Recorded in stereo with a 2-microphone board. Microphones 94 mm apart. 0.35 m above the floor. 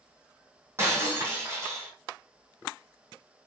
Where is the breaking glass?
30° right (ahead or behind), 1.5 m.